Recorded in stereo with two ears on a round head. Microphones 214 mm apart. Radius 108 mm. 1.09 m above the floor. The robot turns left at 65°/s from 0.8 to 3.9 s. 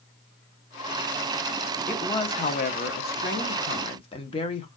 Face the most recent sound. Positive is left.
turn(degrees=35)